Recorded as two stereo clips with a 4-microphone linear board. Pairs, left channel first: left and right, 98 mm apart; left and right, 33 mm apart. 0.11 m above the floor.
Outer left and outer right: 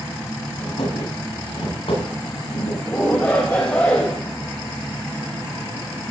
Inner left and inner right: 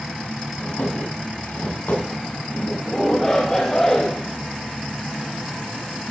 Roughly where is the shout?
Left.